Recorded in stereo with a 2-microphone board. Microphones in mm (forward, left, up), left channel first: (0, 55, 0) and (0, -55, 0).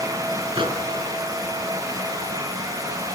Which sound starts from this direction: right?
A microwave, at 0.6 s.